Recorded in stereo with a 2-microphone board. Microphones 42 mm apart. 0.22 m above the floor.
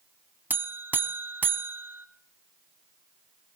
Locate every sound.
0.5 s a buzzer: 50° right (ahead or behind), 0.7 m